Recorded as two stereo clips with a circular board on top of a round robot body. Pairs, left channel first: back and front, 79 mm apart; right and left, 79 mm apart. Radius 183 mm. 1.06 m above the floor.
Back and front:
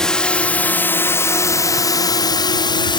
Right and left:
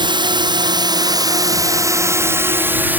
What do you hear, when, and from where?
0.0 s a drone: 100° left; by 3.0 s 160° left